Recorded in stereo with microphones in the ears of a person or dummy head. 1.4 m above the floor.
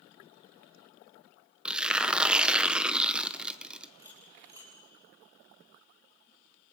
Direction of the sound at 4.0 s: 10° right (ahead or behind).